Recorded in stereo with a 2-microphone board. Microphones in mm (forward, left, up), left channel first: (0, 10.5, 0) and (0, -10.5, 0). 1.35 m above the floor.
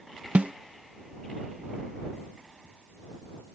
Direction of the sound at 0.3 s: 85° right.